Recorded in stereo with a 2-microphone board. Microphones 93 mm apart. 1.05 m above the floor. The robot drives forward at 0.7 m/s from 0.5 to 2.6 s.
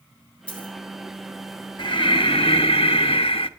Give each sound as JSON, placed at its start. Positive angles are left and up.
{"t": 0.5, "sound": "a dropped coin", "side_deg": 15, "distance_m": 4.5}
{"t": 1.8, "sound": "breathing", "side_deg": 60, "distance_m": 1.3}